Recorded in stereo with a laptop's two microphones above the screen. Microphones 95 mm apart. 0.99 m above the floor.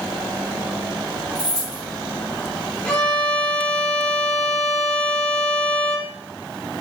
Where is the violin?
10° left (ahead or behind), 1.4 m.